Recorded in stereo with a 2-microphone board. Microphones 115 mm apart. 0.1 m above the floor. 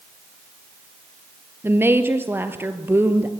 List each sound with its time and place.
1.6 s a woman speaking: 20° right (ahead or behind), 2 m